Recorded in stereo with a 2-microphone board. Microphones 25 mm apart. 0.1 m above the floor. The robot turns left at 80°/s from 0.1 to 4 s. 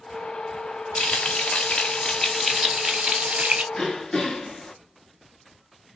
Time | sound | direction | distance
0.9 | frying | 120° left | 1.4 m
3.7 | throat clearing | 20° left (ahead or behind) | 0.9 m